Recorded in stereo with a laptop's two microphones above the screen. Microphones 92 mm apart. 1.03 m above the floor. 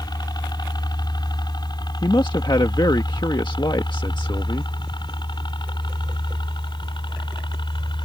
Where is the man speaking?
55° left (ahead or behind).